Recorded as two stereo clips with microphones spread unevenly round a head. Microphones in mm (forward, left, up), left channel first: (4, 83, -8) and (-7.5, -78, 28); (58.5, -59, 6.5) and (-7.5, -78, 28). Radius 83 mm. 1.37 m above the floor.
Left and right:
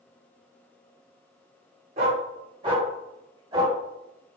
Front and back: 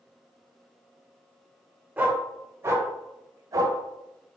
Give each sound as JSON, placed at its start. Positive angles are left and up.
{"t": 2.0, "sound": "a dog barking", "azimuth_deg": -120, "distance_m": 1.4}